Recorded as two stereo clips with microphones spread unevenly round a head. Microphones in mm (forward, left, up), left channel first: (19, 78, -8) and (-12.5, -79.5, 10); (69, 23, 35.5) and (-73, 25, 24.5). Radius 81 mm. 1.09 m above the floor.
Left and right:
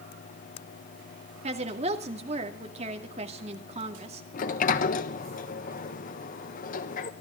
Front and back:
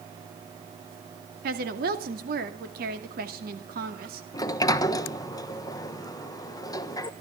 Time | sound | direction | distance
1.4 | a woman speaking | 155° right | 2 m
4.3 | a sliding door | 65° left | 1.1 m